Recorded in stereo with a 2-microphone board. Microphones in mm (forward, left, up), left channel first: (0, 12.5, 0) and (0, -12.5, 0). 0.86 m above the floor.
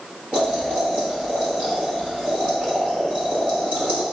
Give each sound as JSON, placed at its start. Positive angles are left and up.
{"t": 0.3, "sound": "boiling", "side_deg": -60, "distance_m": 1.4}